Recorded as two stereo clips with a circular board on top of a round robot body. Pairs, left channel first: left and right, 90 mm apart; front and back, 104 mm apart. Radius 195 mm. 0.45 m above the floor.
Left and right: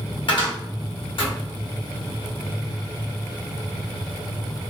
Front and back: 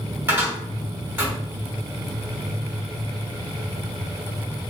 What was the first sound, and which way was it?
A cupboard door, 110° left.